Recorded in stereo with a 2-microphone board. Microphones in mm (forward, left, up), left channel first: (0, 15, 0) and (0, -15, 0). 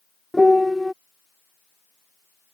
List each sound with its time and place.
0.3 s a piano: centre (ahead or behind)